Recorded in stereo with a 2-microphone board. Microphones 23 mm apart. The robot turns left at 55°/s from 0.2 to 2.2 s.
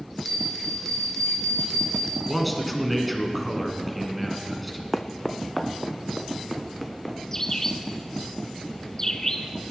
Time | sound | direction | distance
0.2 | a bell | 175° right | 1.5 m
2.3 | a man speaking | centre (ahead or behind) | 1.9 m
4.9 | footsteps | 5° left (ahead or behind) | 0.6 m
7.3 | a bird | 20° left (ahead or behind) | 0.7 m